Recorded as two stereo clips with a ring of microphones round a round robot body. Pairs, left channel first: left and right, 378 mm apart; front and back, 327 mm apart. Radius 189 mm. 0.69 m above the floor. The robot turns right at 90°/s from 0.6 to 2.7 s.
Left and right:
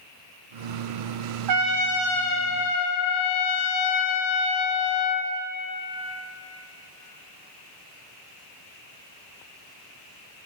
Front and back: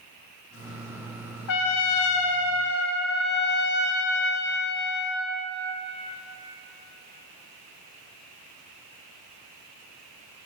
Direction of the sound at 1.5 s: 50° right.